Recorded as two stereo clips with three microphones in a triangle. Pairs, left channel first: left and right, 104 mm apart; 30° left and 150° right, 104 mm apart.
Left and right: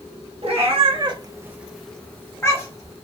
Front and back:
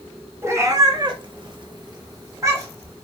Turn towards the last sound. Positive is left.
turn(degrees=145)